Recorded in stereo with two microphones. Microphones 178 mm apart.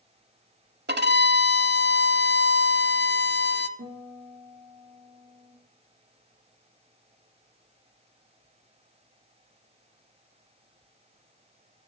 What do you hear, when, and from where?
0.9 s a violin: 65° right (ahead or behind), 0.7 m
3.8 s a guitar: 80° right, 4 m